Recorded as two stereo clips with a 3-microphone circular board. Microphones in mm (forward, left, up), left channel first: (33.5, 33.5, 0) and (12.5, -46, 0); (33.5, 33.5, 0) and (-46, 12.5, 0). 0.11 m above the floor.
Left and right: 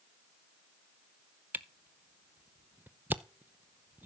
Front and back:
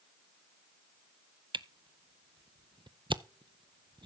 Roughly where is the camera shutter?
Behind.